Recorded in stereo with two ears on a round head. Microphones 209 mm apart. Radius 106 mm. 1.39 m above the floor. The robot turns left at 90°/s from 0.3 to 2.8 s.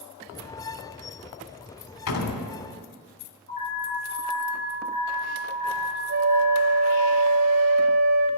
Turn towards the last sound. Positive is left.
turn(degrees=-55)  # may be behind; listen again after turning